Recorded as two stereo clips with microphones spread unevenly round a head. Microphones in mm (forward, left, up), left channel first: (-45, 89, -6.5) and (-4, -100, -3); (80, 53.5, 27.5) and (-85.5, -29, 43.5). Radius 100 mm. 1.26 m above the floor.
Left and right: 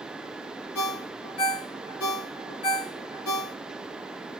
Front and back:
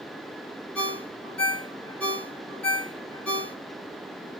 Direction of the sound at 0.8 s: 110° left.